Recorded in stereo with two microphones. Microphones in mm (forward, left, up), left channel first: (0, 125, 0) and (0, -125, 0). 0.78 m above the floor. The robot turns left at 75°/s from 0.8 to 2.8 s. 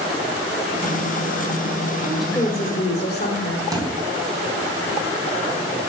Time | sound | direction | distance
2.1 | a woman speaking | 170° right | 3 m
3.7 | a thud | 15° right (ahead or behind) | 3 m